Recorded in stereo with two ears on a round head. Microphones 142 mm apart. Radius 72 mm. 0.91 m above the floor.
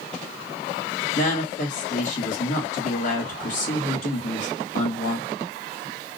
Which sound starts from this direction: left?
A woman speaking, at 1.1 s.